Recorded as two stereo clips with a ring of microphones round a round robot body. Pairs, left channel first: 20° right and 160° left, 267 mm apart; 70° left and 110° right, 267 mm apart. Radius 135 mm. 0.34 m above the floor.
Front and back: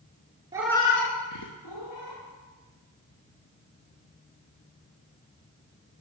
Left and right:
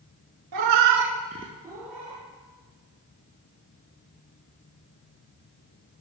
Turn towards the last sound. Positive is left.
turn(degrees=-25)